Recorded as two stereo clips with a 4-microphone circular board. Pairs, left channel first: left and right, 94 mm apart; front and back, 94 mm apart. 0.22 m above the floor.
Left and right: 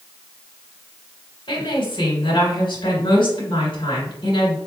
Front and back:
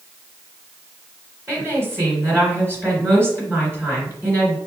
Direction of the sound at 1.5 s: 115° left.